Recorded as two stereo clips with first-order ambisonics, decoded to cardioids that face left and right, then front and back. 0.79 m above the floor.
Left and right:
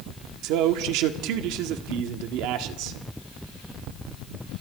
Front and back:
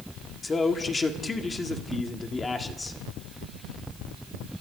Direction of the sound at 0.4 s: 70° right.